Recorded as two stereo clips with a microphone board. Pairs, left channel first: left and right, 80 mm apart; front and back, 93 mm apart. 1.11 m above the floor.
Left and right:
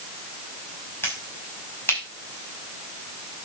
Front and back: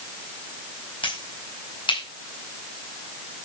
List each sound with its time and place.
1.0 s a finger snap: 30° left, 5.5 m